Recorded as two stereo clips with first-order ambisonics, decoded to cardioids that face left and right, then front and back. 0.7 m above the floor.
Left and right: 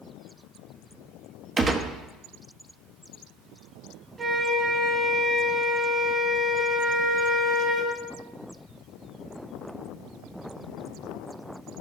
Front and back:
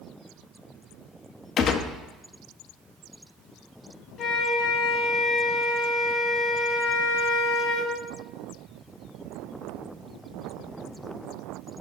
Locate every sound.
1.6 s a gunshot: 30° right, 0.6 m
4.2 s a flute: 25° right, 1.0 m